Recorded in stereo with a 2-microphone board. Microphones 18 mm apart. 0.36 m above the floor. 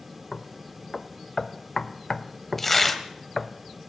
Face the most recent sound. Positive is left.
turn(degrees=10)  # may be behind; listen again after turning